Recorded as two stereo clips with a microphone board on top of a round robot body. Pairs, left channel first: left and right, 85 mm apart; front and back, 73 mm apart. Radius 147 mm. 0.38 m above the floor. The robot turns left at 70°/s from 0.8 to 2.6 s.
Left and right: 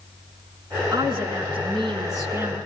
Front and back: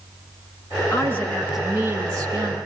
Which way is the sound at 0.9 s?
50° right.